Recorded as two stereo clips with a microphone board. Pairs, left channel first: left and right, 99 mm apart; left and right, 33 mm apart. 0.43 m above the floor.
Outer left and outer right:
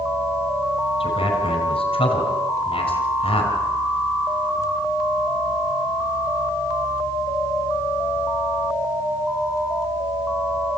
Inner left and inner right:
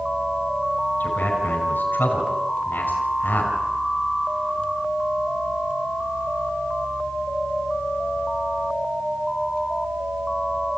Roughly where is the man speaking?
Left.